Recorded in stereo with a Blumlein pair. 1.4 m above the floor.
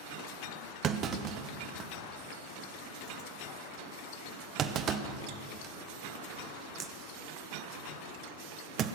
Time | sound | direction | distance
0.8 | a clunk | 30° right | 0.8 m